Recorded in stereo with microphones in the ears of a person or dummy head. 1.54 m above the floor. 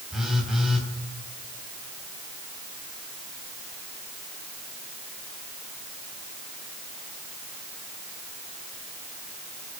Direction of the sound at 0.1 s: Centre (ahead or behind).